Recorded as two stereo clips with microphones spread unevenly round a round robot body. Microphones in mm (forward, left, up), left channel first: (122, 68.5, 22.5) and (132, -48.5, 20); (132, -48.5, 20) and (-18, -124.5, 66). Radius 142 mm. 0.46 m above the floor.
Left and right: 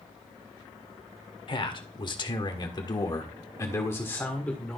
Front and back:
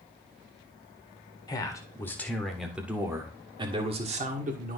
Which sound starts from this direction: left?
A man speaking, at 1.5 s.